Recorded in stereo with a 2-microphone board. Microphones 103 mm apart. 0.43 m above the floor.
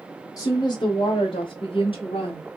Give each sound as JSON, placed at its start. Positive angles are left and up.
{"t": 0.4, "sound": "a woman speaking", "side_deg": 30, "distance_m": 0.9}